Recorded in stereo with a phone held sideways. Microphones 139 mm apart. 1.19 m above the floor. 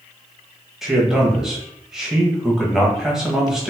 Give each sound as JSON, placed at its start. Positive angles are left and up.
{"t": 0.8, "sound": "a man speaking", "side_deg": -5, "distance_m": 1.3}